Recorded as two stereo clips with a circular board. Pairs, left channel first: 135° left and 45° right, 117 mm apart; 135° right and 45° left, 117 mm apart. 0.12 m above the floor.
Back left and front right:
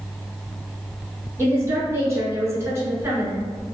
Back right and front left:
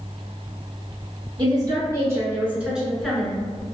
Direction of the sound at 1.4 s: 10° left.